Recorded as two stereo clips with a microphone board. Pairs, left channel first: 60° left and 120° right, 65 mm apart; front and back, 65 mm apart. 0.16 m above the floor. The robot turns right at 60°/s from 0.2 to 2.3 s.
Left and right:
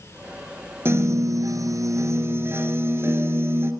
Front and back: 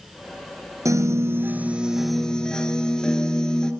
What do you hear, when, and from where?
0.8 s a piano: 165° right, 1.5 m; by 3.7 s 75° right, 1.5 m